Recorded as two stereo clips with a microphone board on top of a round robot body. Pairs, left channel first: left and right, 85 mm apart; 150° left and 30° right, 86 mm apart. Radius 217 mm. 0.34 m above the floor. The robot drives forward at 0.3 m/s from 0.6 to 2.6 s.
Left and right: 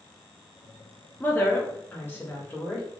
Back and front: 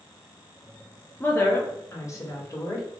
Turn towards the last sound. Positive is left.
turn(degrees=145)